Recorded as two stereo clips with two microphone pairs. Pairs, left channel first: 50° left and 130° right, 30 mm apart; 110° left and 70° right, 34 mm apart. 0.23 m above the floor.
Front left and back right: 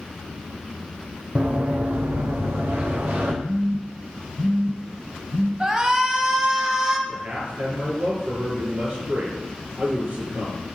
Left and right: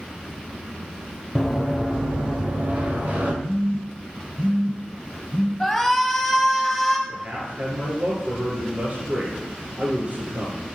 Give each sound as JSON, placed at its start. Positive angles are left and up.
{"t": 1.4, "sound": "running footsteps", "azimuth_deg": -165, "distance_m": 1.8}
{"t": 3.4, "sound": "a phone buzzing", "azimuth_deg": -130, "distance_m": 2.0}
{"t": 5.6, "sound": "a shout", "azimuth_deg": -175, "distance_m": 1.2}
{"t": 7.1, "sound": "a man speaking", "azimuth_deg": -105, "distance_m": 3.0}